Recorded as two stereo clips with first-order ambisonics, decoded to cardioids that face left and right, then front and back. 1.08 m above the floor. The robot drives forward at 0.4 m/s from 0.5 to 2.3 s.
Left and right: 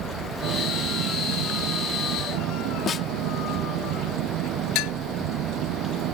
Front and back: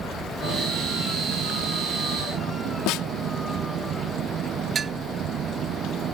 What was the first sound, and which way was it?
An engine running, 125° right.